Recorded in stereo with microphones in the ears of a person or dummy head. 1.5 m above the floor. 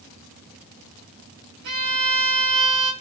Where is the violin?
90° right, 3 m.